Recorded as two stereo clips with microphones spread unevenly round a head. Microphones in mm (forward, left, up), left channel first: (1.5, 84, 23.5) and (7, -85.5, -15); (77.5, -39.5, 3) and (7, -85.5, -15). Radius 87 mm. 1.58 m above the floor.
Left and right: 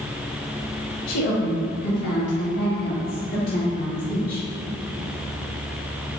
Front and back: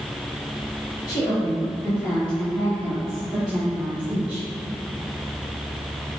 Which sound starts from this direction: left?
A woman speaking, at 1.1 s.